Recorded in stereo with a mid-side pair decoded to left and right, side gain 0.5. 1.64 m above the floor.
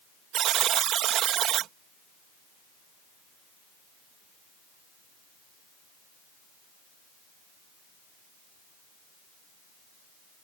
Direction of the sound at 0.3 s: 65° right.